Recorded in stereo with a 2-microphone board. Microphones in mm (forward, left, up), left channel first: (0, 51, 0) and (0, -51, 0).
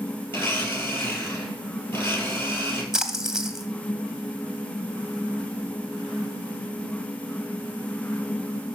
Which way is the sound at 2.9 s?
5° right (ahead or behind).